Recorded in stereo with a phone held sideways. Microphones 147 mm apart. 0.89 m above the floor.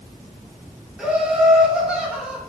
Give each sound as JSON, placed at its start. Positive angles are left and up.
{"t": 1.0, "sound": "laughter", "side_deg": -5, "distance_m": 0.8}